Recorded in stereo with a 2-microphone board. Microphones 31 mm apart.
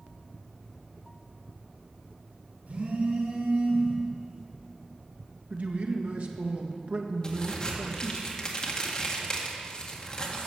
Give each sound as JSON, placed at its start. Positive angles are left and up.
{"t": 2.7, "sound": "a phone buzzing", "side_deg": -75, "distance_m": 4.5}
{"t": 5.5, "sound": "a man speaking", "side_deg": -60, "distance_m": 1.7}
{"t": 7.2, "sound": "a crack", "side_deg": 25, "distance_m": 1.8}